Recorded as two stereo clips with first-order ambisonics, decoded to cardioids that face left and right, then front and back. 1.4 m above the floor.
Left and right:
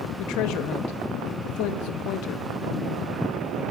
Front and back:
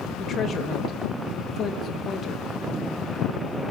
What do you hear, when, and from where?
0.2 s a woman speaking: 60° left, 2.5 m